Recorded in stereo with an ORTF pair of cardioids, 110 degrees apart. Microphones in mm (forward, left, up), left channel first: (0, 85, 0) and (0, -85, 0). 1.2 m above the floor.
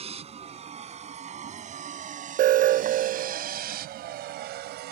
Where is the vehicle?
35° right; by 4.9 s 80° right.